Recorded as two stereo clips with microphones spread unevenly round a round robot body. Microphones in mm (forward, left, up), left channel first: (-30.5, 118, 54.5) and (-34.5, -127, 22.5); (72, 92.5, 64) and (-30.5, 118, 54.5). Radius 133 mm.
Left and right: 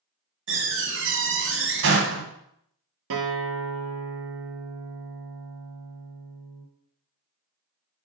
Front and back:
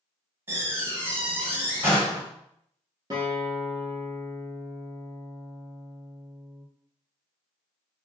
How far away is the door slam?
About 1.7 m.